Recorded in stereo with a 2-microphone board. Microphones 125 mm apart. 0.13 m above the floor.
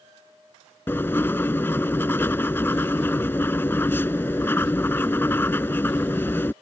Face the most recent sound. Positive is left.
turn(degrees=20)  # may be behind; listen again after turning